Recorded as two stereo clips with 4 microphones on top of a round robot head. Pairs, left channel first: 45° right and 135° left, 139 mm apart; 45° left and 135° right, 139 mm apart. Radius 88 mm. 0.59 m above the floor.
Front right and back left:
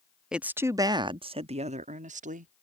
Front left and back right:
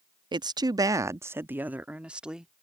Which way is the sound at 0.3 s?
145° right.